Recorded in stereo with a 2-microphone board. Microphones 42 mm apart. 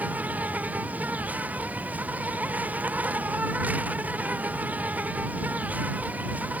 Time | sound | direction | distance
0.0 | an insect | 40° right (ahead or behind) | ?